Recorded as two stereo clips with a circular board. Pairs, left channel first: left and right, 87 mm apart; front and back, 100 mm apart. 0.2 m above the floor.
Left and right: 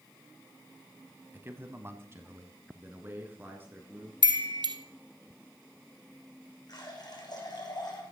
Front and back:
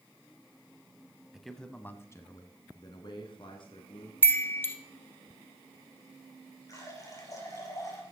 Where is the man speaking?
105° right, 1.1 m; by 4.1 s 25° right, 3 m.